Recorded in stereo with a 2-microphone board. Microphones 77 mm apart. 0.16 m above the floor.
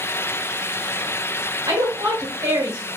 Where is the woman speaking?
45° right (ahead or behind), 1.4 m.